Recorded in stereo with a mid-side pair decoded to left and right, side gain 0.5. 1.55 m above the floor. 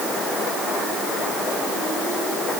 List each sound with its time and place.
Only background noise.